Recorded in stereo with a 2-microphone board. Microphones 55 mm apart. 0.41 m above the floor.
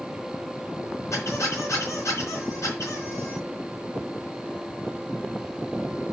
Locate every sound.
1.1 s a squeak: 65° left (ahead or behind), 3.5 m